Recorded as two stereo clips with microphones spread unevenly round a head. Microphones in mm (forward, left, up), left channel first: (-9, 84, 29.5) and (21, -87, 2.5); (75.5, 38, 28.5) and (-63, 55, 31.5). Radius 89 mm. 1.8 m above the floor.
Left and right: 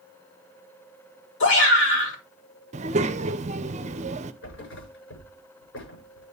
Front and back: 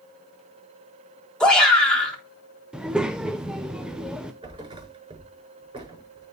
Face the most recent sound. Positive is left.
turn(degrees=115)